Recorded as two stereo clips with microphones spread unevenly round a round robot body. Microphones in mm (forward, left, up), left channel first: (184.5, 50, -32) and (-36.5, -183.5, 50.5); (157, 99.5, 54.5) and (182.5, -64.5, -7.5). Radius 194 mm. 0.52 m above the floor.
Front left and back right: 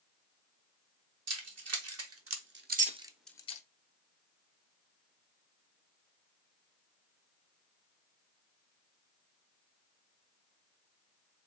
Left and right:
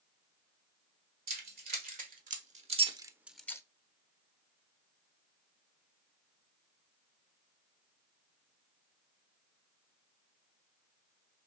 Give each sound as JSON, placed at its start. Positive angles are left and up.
{"t": 1.3, "sound": "keys jangling", "azimuth_deg": -90, "distance_m": 1.6}